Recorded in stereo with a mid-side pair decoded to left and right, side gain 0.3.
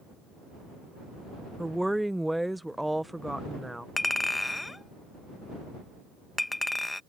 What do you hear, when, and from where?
1.6 s a woman speaking: 10° right
4.0 s a clink: 25° left